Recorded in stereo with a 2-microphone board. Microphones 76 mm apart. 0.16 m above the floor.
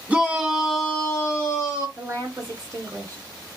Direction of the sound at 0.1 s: 15° right (ahead or behind).